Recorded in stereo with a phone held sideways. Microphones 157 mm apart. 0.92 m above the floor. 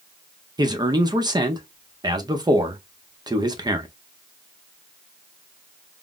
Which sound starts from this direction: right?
A man speaking, at 0.6 s.